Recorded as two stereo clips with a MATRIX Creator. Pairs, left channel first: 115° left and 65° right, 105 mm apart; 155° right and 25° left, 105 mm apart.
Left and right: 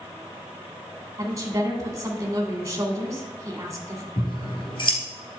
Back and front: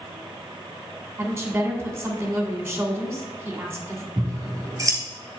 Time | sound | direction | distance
1.2 | a woman speaking | 30° right | 2 m
4.2 | scissors | 80° left | 2 m